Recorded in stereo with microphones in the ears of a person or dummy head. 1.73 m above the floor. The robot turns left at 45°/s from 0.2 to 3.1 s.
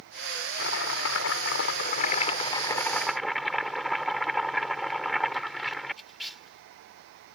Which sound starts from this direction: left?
Chopping, at 0.6 s.